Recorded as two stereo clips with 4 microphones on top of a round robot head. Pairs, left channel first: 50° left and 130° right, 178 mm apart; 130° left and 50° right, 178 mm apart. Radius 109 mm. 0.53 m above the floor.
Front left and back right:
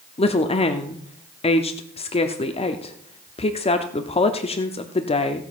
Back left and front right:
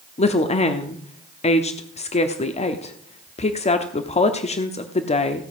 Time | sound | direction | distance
0.2 | a woman speaking | 95° left | 1.0 m